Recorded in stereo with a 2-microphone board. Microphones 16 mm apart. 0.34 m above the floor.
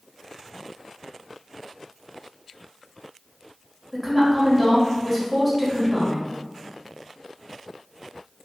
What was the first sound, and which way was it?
A woman speaking, centre (ahead or behind).